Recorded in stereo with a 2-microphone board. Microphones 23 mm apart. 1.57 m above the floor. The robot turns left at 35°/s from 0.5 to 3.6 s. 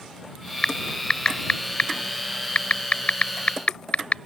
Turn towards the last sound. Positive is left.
turn(degrees=60)  # may be behind; listen again after turning